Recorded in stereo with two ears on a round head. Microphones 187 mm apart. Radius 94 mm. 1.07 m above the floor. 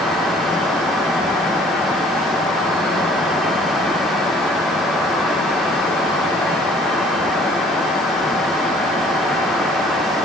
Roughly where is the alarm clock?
No alarm clock in this recording.